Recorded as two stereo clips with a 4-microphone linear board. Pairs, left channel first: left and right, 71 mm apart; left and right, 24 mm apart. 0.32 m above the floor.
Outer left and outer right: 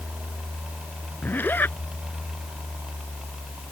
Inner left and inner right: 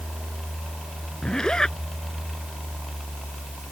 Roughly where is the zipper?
Left.